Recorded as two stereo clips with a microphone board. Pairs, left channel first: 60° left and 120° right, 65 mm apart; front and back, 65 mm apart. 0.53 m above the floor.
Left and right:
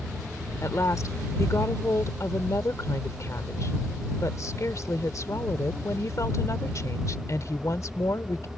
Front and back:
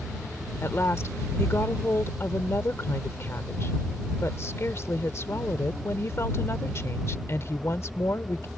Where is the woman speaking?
35° left.